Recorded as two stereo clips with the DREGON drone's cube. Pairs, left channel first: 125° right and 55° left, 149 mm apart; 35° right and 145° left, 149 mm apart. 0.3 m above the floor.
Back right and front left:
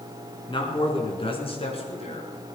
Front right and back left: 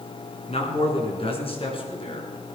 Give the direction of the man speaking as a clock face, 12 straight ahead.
2 o'clock.